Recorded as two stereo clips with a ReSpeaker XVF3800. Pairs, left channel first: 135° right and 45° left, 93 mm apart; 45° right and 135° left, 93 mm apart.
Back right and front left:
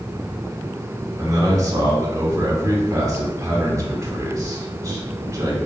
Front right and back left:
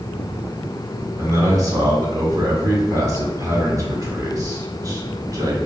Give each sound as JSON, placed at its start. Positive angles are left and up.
{"t": 1.2, "sound": "a man speaking", "azimuth_deg": 90, "distance_m": 1.2}